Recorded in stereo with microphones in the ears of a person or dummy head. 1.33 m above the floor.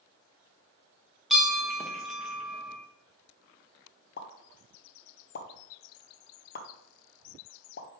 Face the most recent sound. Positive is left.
turn(degrees=55)  # may be behind; listen again after turning